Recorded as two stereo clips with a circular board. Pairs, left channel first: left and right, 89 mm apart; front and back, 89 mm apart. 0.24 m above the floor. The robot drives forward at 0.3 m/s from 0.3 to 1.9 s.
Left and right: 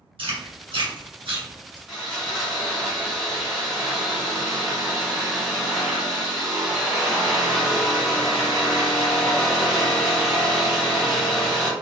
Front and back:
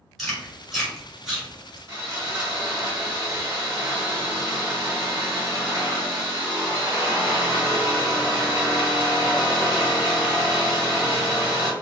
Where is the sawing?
175° right, 1.7 m.